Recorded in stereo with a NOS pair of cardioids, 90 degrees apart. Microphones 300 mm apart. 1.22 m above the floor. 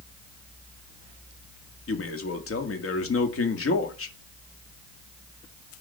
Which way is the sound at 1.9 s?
45° left.